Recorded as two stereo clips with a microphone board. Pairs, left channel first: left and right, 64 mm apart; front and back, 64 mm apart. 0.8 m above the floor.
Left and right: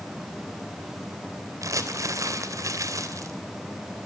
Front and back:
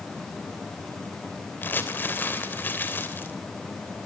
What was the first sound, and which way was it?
Crumpling, 60° right.